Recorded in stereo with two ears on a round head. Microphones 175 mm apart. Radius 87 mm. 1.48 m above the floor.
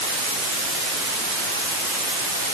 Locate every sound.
Only background noise.